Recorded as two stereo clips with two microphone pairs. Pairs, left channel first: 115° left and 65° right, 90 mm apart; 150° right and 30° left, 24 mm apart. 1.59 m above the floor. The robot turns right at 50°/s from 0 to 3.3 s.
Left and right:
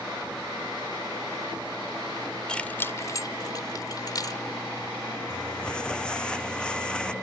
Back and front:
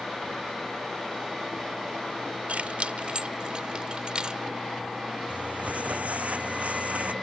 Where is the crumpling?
35° left.